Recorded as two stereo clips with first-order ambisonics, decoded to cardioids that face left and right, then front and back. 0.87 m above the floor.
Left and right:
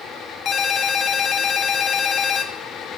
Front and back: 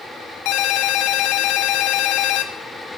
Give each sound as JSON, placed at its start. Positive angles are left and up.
{"t": 0.5, "sound": "a ringtone", "azimuth_deg": 25, "distance_m": 0.5}